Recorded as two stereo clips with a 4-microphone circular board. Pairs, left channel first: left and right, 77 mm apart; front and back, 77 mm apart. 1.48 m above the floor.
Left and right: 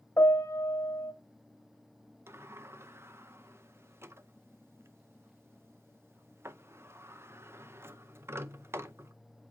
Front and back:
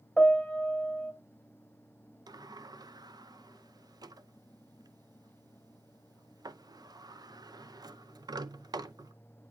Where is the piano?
80° left, 1.5 m.